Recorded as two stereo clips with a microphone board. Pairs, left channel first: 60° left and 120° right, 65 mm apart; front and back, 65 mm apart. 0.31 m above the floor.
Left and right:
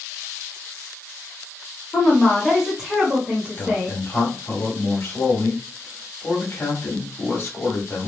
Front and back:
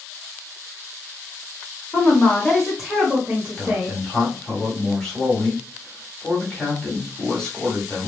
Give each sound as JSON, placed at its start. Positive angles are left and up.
{"t": 1.9, "sound": "a woman speaking", "azimuth_deg": 5, "distance_m": 0.9}
{"t": 3.6, "sound": "a man speaking", "azimuth_deg": 75, "distance_m": 1.3}